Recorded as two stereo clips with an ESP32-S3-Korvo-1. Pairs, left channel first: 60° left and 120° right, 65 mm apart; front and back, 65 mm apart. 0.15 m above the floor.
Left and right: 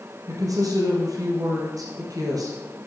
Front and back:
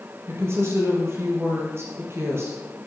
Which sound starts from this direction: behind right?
A woman speaking, at 0.3 s.